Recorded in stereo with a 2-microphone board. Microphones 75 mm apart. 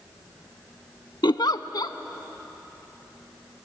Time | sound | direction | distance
1.2 | a giggle | 70° left (ahead or behind) | 0.7 m